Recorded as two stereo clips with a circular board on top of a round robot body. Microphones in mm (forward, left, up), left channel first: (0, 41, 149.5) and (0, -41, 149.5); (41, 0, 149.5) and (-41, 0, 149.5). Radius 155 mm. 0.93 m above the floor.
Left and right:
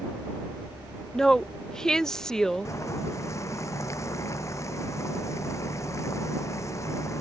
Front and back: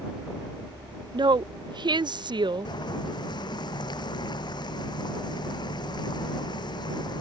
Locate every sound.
1.1 s a woman speaking: 170° left
2.6 s boiling: 35° left